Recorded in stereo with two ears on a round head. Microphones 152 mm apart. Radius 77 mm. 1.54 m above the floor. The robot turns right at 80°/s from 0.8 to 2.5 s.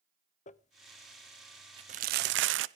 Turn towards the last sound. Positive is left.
turn(degrees=-80)